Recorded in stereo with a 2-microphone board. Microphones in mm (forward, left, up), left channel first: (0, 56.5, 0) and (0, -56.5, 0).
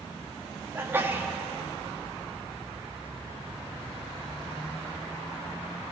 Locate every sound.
0.8 s a sneeze: 20° right (ahead or behind), 4 m